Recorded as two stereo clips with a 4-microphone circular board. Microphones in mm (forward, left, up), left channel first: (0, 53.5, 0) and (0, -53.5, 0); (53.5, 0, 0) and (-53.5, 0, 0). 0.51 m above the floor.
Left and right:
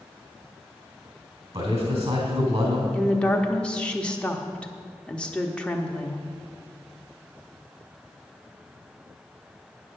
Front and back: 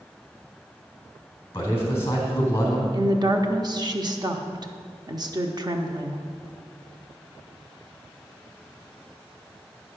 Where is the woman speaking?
165° left, 0.8 m.